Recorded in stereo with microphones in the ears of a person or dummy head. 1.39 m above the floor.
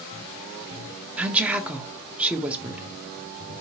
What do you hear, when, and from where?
1.2 s a woman speaking: 10° right (ahead or behind), 0.6 m